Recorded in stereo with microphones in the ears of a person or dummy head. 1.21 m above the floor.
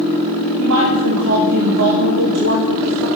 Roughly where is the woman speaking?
Right.